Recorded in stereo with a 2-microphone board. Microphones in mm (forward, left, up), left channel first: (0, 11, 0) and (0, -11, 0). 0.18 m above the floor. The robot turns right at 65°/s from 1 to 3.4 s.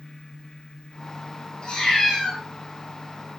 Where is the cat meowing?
135° left, 1.8 m; by 2.4 s 175° right, 1.8 m.